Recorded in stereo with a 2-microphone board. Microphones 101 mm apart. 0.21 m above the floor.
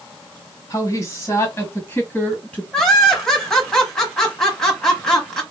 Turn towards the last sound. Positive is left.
turn(degrees=5)  # may be behind; listen again after turning